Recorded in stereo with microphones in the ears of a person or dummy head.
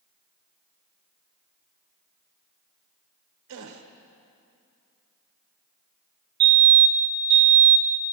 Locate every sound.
3.5 s a gasp: 75° right (ahead or behind), 1.1 m
6.4 s a fire alarm: 50° right (ahead or behind), 1.5 m